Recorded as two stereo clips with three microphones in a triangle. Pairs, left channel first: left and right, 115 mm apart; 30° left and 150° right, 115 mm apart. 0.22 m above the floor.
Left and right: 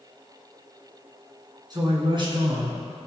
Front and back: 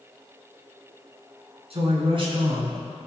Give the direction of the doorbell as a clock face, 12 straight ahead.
I don't hear a doorbell.